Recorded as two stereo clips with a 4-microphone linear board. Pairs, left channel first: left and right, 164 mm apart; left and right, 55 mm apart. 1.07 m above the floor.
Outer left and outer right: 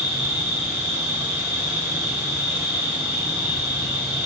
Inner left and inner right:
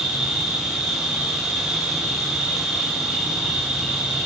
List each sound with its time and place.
0.0 s an insect: 10° right (ahead or behind), 4 m